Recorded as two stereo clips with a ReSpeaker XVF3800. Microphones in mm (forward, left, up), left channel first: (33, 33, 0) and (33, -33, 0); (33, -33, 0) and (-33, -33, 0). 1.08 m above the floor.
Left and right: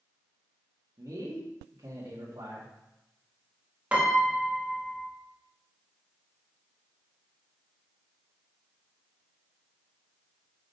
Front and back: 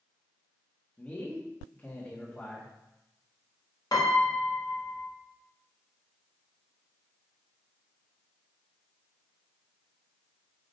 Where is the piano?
20° right, 1.2 m.